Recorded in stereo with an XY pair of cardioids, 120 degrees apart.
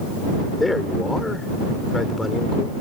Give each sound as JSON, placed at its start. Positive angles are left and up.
{"t": 0.6, "sound": "a man speaking", "azimuth_deg": 15}